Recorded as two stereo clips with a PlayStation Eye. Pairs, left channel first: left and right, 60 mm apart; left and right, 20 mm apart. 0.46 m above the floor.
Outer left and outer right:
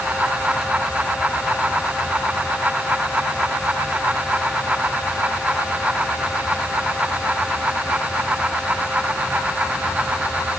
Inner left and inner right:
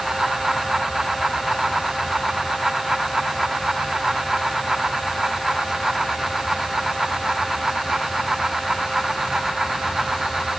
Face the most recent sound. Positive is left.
No sound to turn to.